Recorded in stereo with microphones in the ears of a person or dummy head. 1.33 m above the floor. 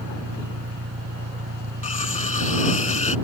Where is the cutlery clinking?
40° left (ahead or behind).